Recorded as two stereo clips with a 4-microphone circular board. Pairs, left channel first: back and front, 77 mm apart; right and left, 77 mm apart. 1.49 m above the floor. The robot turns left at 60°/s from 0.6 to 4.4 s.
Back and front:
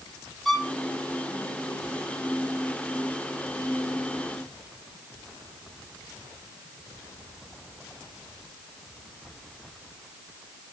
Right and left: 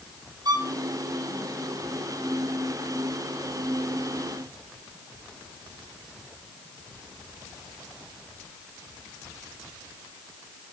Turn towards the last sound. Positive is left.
turn(degrees=-140)